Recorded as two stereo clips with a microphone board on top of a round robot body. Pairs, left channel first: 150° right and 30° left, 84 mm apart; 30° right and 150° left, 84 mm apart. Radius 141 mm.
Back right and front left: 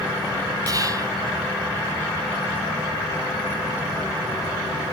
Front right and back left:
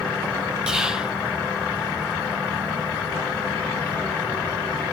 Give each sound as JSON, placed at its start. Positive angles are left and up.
{"t": 0.7, "sound": "whispering", "azimuth_deg": 70, "distance_m": 1.6}